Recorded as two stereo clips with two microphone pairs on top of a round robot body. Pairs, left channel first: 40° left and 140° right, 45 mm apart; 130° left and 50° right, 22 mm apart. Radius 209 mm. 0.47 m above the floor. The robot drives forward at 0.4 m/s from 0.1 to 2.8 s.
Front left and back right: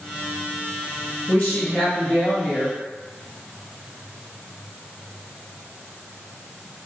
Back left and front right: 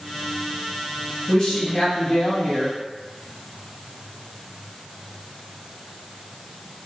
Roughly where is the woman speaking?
Left.